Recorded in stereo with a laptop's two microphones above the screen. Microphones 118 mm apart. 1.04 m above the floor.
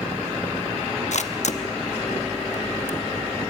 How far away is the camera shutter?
About 0.8 m.